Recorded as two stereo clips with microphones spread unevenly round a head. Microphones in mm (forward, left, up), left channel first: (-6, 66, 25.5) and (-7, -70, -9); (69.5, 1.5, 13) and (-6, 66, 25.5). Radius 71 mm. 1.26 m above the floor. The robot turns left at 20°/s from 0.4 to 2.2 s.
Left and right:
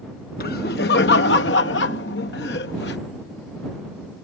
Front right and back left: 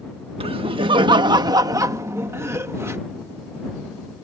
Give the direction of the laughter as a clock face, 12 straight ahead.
8 o'clock.